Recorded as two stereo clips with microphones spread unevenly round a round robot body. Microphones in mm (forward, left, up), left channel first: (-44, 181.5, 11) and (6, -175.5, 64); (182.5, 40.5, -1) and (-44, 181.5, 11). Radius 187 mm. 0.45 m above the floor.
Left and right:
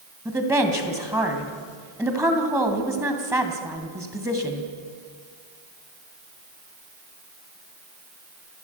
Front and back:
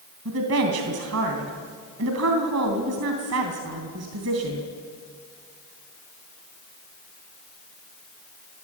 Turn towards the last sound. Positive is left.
turn(degrees=-165)